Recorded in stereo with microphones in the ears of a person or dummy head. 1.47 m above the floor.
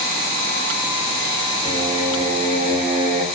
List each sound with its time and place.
1.6 s singing: 35° right (ahead or behind), 0.6 m